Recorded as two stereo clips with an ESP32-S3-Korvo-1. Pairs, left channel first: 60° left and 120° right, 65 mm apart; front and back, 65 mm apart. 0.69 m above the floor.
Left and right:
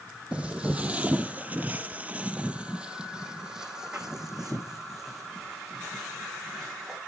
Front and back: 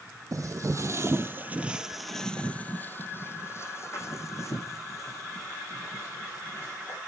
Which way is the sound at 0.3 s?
170° left.